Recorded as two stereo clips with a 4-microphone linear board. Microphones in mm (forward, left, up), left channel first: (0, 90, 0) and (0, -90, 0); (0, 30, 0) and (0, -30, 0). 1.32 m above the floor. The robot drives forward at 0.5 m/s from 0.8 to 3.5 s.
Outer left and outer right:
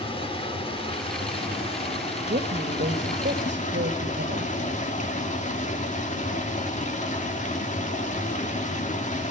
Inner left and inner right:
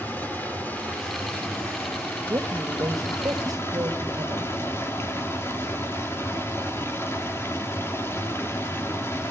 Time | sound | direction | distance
0.0 | running water | 30° left (ahead or behind) | 4 m
2.3 | a woman speaking | 65° right (ahead or behind) | 1.9 m